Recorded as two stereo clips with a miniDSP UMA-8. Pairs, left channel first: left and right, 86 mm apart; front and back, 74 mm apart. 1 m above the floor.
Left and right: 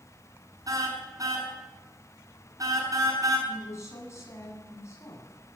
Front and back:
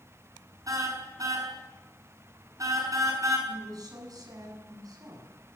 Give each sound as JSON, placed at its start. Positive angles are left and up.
{"t": 0.7, "sound": "a car horn", "azimuth_deg": -135, "distance_m": 6.0}
{"t": 3.5, "sound": "a woman speaking", "azimuth_deg": 145, "distance_m": 8.5}